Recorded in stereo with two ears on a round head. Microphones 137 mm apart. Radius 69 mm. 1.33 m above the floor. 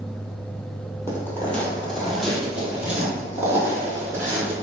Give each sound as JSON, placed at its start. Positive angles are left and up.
{"t": 1.1, "sound": "footsteps", "side_deg": 15, "distance_m": 1.4}